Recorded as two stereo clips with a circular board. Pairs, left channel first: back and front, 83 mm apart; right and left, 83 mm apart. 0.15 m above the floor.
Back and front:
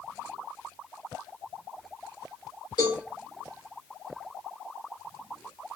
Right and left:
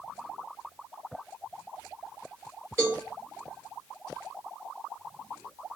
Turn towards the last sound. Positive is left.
turn(degrees=150)